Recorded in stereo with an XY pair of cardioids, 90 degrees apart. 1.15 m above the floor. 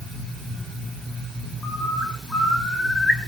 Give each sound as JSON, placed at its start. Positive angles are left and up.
{"t": 1.6, "sound": "a bird", "azimuth_deg": 20, "distance_m": 5.5}